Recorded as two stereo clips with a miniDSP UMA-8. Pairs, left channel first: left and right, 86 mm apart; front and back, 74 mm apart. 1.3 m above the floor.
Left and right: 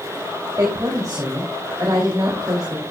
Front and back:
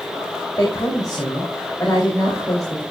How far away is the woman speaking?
About 3 m.